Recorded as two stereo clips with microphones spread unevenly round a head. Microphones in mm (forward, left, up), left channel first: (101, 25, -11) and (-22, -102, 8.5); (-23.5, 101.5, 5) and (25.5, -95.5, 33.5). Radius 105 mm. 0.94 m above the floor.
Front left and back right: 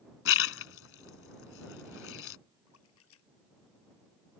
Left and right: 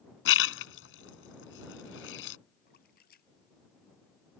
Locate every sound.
0.2 s a splash: 70° left
2.7 s a splash: 55° left